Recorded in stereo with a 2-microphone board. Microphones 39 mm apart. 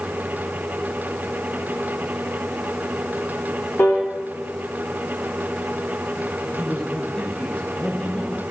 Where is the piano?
55° left (ahead or behind), 4 m.